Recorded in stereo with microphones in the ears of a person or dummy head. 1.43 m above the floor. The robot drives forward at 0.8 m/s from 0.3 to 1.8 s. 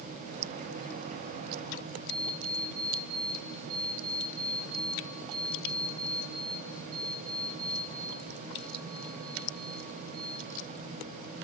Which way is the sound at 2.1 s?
50° right (ahead or behind).